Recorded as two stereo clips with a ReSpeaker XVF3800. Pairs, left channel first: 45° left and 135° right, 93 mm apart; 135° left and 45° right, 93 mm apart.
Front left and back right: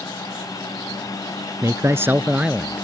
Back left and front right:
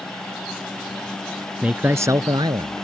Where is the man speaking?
115° right; by 2.9 s 50° right.